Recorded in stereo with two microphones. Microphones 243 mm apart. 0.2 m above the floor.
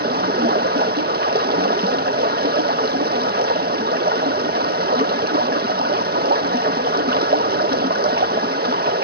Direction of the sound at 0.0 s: 40° right (ahead or behind).